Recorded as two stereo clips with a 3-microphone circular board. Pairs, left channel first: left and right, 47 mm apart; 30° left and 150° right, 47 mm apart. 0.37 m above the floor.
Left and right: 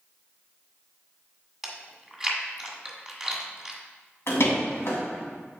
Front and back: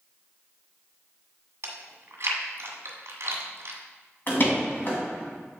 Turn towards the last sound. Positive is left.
turn(degrees=70)